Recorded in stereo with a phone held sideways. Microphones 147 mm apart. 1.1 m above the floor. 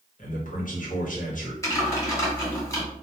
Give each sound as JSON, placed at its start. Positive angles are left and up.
{"t": 0.2, "sound": "a man speaking", "side_deg": 65, "distance_m": 0.9}
{"t": 1.6, "sound": "typing on a keyboard", "side_deg": 20, "distance_m": 1.2}